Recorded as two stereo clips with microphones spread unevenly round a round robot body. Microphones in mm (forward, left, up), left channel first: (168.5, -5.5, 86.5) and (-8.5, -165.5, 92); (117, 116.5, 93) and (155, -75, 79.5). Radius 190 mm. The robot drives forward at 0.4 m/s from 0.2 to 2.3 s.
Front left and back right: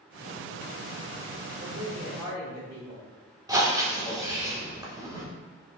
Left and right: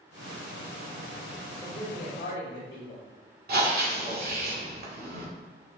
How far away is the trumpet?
I don't hear a trumpet.